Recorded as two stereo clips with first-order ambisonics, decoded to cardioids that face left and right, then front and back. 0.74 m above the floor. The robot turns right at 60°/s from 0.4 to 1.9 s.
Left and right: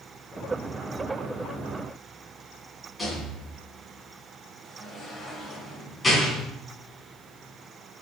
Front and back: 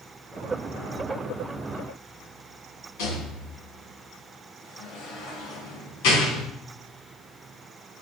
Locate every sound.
3.0 s a rattle: 5° left, 4 m